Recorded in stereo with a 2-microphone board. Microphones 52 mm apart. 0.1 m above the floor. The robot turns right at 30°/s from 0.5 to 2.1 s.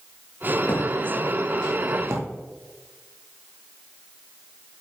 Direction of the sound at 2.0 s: 70° right (ahead or behind).